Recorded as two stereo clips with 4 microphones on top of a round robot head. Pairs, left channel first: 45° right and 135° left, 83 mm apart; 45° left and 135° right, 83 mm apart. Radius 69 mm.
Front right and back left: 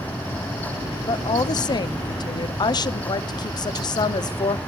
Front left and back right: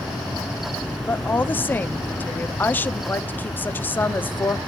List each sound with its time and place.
1.1 s a woman speaking: 20° right, 0.7 m